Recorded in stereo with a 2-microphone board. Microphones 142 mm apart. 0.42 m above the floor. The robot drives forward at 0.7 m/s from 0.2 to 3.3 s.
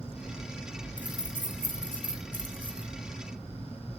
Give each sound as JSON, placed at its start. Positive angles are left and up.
{"t": 1.0, "sound": "keys jangling", "side_deg": 70, "distance_m": 3.5}